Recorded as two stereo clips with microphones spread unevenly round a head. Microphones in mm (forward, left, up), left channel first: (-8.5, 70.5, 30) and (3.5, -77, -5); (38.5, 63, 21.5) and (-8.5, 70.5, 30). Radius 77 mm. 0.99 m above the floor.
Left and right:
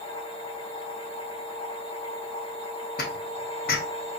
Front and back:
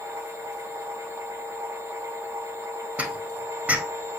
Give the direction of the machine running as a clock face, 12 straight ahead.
7 o'clock.